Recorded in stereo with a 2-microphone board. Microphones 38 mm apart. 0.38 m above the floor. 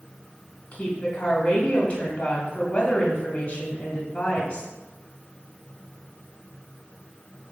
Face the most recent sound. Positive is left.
turn(degrees=25)  # may be behind; listen again after turning